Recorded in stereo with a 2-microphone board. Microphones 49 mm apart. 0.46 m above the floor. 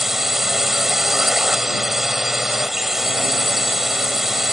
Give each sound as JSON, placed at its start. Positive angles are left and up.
{"t": 0.0, "sound": "a drone", "side_deg": -5}